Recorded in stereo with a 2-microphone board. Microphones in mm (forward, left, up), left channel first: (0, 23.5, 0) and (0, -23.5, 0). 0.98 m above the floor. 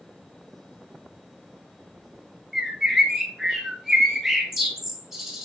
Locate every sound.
2.5 s a bird: 5° right (ahead or behind), 2.5 m